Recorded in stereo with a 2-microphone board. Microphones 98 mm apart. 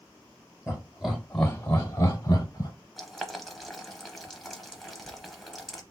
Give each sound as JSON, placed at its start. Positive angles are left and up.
{"t": 0.7, "sound": "laughter", "side_deg": -10, "distance_m": 1.4}
{"t": 3.0, "sound": "boiling", "side_deg": 0, "distance_m": 0.7}